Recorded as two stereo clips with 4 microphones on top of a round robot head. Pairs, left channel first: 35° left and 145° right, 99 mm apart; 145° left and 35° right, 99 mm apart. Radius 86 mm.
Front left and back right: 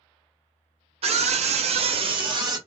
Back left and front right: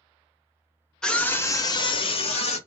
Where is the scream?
130° right, 0.7 m; by 2.6 s 160° left, 0.9 m.